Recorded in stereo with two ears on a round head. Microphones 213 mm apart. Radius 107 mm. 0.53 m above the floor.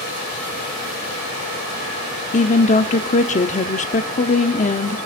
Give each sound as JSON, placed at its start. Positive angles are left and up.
{"t": 2.3, "sound": "a woman speaking", "side_deg": 30, "distance_m": 1.0}